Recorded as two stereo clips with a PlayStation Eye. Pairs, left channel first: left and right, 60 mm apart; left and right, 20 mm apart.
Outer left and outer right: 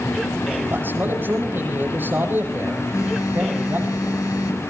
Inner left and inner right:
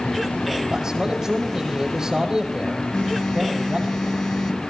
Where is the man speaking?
35° right (ahead or behind), 8.5 m.